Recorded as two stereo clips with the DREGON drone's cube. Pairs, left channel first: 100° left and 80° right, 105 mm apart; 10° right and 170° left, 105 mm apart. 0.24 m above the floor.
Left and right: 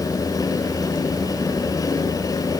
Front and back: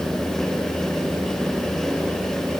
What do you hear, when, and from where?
Only background noise.